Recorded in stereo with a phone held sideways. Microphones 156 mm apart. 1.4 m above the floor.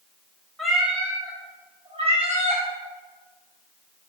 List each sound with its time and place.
0.6 s a cat meowing: centre (ahead or behind), 1.1 m; by 2.6 s 50° right (ahead or behind), 1.5 m